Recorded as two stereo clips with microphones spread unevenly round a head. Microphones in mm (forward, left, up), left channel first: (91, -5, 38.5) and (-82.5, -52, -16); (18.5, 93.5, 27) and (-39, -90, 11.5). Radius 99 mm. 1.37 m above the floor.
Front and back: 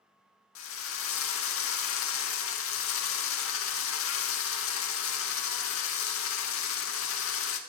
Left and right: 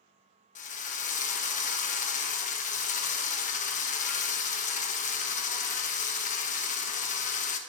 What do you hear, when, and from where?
0.6 s a drill: 20° left, 1.2 m